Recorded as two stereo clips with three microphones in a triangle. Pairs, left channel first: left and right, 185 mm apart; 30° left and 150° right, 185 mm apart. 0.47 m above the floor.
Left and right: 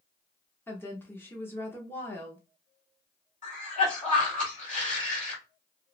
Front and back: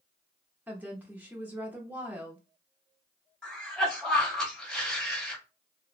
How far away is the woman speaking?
About 0.7 m.